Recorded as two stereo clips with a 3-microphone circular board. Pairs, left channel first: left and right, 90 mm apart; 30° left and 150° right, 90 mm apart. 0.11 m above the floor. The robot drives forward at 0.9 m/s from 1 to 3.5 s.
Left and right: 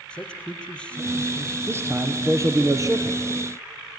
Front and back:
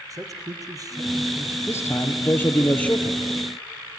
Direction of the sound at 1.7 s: 30° right.